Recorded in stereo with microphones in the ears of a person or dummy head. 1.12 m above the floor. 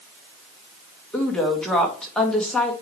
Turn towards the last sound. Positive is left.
turn(degrees=5)  # may be behind; listen again after turning